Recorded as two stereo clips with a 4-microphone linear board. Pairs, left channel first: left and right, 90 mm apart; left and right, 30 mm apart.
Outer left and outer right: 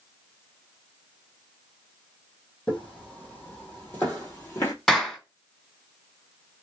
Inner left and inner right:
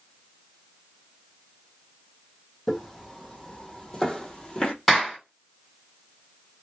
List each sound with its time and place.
2.7 s footsteps: 5° left (ahead or behind), 2.0 m; by 4.7 s 25° left (ahead or behind), 1.5 m
4.9 s a clap: centre (ahead or behind), 1.9 m